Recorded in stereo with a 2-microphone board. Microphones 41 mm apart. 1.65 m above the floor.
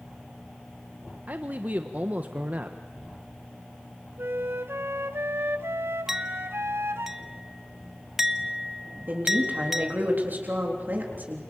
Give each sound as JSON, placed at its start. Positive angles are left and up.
{"t": 1.3, "sound": "a man speaking", "side_deg": -45, "distance_m": 1.2}
{"t": 4.2, "sound": "a flute", "side_deg": -85, "distance_m": 1.1}
{"t": 6.1, "sound": "a clink", "side_deg": -10, "distance_m": 0.9}
{"t": 9.1, "sound": "a woman speaking", "side_deg": -50, "distance_m": 3.5}